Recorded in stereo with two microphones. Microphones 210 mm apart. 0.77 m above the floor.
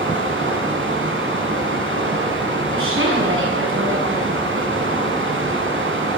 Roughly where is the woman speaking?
Right.